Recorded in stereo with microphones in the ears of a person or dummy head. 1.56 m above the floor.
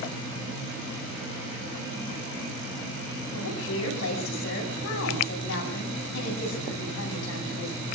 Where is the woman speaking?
75° left (ahead or behind), 10 m.